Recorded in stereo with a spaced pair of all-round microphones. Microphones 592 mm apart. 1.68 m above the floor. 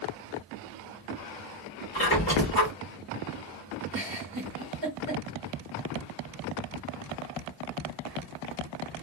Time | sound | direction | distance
1.9 | a squeak | 20° left (ahead or behind) | 1.5 m
3.9 | a giggle | 40° right (ahead or behind) | 1.3 m